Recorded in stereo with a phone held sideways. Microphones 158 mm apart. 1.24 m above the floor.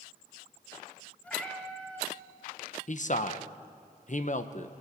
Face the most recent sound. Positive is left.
turn(degrees=55)  # may be behind; listen again after turning